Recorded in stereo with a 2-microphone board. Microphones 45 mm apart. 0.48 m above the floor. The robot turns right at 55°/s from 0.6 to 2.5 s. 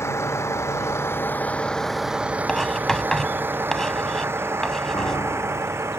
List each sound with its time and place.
0.0 s a vehicle: 80° left; by 6.0 s 75° right (ahead or behind)
2.5 s writing: 10° left (ahead or behind)
4.9 s a piano: 75° left (ahead or behind)